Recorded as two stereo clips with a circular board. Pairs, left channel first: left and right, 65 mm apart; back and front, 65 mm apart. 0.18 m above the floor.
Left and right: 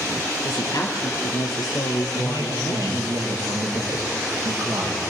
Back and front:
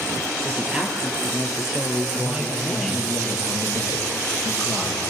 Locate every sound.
0.4 s a woman speaking: 70° left, 3.5 m; by 3.1 s 95° left, 3.5 m
2.1 s a man speaking: 65° right, 5 m